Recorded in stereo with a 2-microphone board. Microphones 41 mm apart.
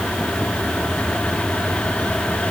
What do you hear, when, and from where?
Only background noise.